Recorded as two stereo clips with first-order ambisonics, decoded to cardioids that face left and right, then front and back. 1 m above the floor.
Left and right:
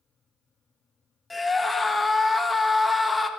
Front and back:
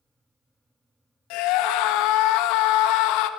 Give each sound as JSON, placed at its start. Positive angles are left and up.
{"t": 1.3, "sound": "a scream", "azimuth_deg": 10, "distance_m": 1.0}